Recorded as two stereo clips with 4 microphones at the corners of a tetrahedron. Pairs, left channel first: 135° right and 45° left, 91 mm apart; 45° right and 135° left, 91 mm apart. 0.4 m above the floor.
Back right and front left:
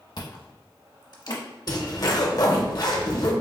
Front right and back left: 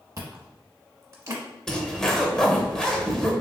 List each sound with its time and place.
0.2 s chewing: 175° right, 0.8 m
1.7 s a zipper: 125° right, 0.6 m